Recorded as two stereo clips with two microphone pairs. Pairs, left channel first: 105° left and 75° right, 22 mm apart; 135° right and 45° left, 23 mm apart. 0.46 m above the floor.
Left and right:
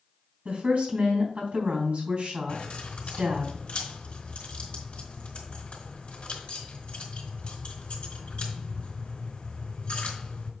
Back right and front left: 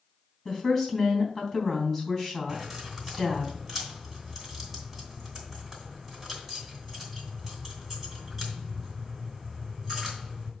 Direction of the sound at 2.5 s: 115° left.